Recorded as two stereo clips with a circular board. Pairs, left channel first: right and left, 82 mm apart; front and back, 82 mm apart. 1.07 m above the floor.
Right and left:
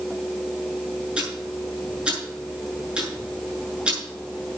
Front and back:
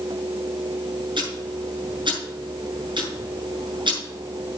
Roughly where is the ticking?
Behind.